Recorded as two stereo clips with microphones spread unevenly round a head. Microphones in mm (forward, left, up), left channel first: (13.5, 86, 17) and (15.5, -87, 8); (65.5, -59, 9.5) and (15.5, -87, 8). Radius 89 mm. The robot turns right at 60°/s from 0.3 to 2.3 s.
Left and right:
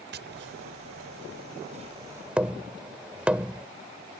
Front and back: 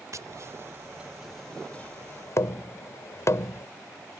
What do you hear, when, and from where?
0.1 s tapping: 125° right; by 3.7 s 5° right